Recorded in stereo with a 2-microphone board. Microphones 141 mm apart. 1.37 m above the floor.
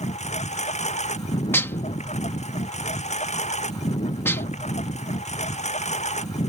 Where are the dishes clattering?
15° left (ahead or behind).